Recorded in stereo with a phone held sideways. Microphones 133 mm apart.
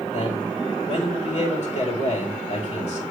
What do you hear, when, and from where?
0.1 s a man speaking: 60° left (ahead or behind), 6.5 m